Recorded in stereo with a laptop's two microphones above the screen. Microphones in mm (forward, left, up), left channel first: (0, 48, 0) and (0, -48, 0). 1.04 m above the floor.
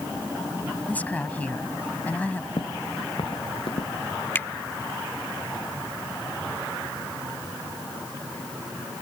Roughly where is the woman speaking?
Centre.